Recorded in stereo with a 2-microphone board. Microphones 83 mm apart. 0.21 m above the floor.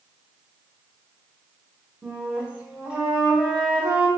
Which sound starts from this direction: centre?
A flute, at 2.0 s.